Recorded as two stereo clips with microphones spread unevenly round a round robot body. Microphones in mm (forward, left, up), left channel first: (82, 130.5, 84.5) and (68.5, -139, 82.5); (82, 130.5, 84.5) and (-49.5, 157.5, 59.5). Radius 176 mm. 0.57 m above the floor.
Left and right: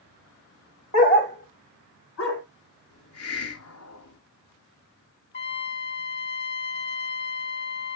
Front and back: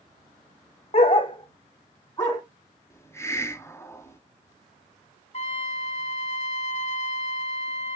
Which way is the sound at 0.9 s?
20° left.